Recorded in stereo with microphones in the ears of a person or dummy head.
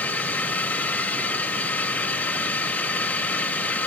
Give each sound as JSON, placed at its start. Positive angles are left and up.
{"t": 0.0, "sound": "a drone", "side_deg": 10}